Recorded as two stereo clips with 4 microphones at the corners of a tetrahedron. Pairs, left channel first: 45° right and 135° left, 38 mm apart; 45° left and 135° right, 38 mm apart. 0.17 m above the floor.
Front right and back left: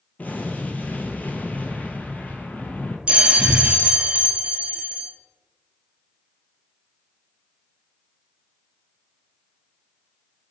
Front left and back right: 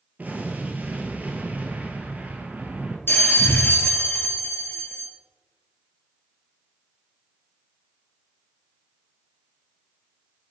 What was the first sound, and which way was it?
An explosion, 85° right.